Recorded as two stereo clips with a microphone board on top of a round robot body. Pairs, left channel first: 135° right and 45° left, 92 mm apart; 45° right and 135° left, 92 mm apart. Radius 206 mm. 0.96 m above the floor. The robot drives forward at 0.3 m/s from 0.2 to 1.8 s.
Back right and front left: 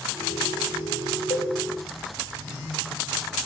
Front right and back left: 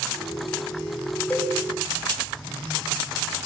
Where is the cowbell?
115° right, 5.5 m.